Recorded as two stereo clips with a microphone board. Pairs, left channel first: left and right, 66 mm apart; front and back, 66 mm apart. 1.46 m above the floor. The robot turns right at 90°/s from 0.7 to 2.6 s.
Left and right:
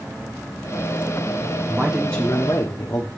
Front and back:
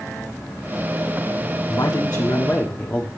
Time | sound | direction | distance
1.7 | a man speaking | 25° right | 1.2 m